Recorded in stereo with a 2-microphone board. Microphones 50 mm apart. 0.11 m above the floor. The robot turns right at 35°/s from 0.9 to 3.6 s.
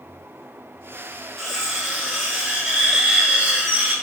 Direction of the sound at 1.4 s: Centre (ahead or behind).